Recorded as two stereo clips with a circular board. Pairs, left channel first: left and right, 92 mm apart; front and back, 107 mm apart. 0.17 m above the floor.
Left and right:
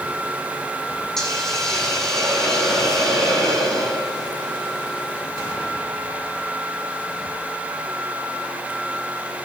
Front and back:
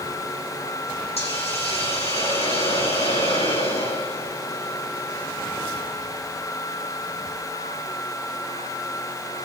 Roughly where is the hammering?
I don't hear hammering.